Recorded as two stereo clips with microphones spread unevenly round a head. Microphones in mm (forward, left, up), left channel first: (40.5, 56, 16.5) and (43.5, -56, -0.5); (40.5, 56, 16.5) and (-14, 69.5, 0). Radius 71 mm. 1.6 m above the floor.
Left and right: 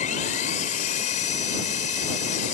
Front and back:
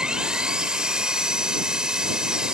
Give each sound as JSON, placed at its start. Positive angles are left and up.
{"t": 0.0, "sound": "an engine running", "azimuth_deg": 85}